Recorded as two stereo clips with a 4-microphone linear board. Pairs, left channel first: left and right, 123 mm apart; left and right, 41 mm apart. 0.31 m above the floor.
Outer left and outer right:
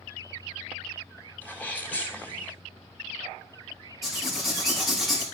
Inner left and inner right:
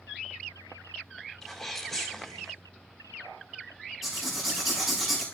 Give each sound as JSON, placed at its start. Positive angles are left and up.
{"t": 1.4, "sound": "a sneeze", "side_deg": 15, "distance_m": 2.5}
{"t": 4.0, "sound": "writing", "side_deg": 0, "distance_m": 5.5}